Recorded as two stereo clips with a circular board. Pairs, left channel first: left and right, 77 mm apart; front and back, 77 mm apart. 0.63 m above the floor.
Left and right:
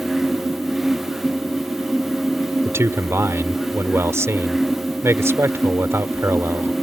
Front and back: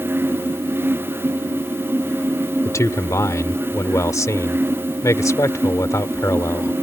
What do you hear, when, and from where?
2.6 s a man speaking: 40° right